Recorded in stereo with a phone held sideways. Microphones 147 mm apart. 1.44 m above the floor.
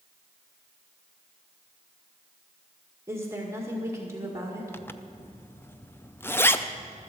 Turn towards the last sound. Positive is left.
turn(degrees=15)  # may be behind; listen again after turning